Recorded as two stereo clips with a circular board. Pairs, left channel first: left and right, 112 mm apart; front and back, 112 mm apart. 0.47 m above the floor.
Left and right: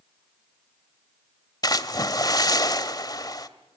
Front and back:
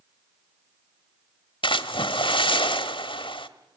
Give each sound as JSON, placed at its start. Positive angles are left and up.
{"t": 1.6, "sound": "a splash", "azimuth_deg": 35, "distance_m": 1.1}